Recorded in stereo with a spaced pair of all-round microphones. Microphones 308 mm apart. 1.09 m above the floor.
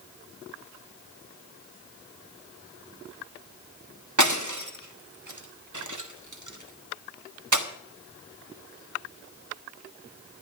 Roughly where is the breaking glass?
Right.